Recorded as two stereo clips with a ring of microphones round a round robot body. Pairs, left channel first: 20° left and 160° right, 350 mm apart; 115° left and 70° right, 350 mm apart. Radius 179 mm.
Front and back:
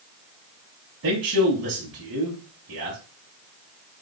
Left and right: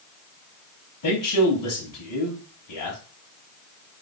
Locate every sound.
1.0 s a man speaking: 155° left, 3 m